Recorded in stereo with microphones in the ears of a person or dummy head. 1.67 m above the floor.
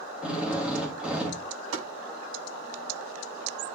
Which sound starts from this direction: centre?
A drill, at 0.2 s.